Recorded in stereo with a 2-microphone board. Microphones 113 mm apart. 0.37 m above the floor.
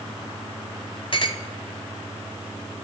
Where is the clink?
50° left (ahead or behind), 1.0 m.